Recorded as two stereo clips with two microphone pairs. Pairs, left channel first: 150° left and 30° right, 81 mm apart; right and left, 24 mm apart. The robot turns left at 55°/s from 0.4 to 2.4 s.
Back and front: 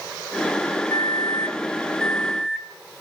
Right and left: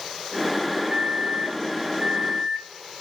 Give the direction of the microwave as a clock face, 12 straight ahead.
8 o'clock.